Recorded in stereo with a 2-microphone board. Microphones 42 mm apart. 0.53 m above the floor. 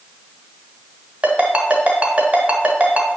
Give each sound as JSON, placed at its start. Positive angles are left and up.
{"t": 1.2, "sound": "a ringtone", "side_deg": -35, "distance_m": 1.8}